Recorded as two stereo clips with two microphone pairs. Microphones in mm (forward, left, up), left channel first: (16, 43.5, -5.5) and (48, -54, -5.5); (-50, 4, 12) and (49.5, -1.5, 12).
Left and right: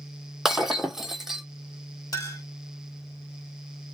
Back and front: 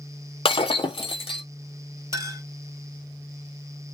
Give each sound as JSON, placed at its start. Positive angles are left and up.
{"t": 0.5, "sound": "breaking glass", "azimuth_deg": -160, "distance_m": 0.6}
{"t": 2.1, "sound": "a clink", "azimuth_deg": 55, "distance_m": 2.0}